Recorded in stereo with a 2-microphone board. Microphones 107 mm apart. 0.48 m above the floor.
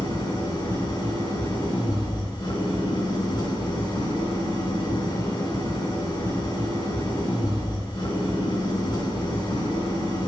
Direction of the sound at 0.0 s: 45° left (ahead or behind).